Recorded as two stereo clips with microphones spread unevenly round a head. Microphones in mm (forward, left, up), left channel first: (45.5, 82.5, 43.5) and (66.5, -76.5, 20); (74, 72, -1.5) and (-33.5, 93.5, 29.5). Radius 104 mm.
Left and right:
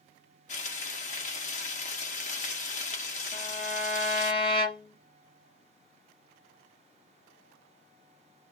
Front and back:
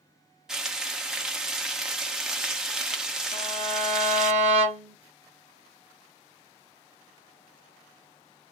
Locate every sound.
0.5 s frying: 100° left, 0.6 m
3.3 s a violin: 155° left, 1.1 m